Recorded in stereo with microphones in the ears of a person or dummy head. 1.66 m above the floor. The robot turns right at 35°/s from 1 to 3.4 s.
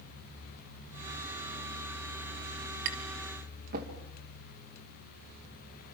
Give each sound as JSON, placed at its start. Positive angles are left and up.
{"t": 2.9, "sound": "tapping", "side_deg": -70, "distance_m": 2.5}